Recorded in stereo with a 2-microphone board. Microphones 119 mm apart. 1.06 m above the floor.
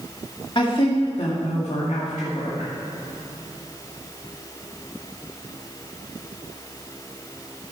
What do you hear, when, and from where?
0.6 s a woman speaking: 45° left (ahead or behind), 2.0 m; by 2.7 s 80° left, 2.0 m